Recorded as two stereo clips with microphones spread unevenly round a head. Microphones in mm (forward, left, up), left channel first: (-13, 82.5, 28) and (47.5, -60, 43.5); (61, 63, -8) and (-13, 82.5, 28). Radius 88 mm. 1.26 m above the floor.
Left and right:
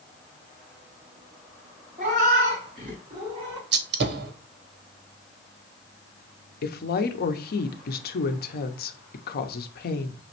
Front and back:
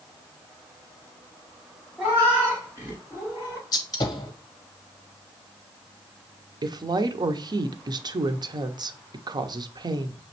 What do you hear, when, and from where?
2.0 s a cat meowing: 110° right, 2.5 m; by 3.6 s 140° right, 2.5 m
3.7 s a gunshot: 55° right, 0.8 m
6.6 s a woman speaking: 120° left, 0.7 m